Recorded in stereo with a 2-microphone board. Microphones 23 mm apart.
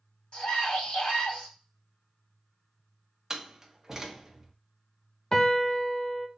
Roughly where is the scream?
Left.